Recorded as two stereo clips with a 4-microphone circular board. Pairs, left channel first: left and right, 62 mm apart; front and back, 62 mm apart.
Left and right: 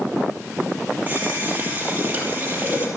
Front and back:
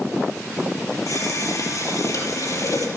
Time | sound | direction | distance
1.1 | a running tap | 25° right | 5.5 m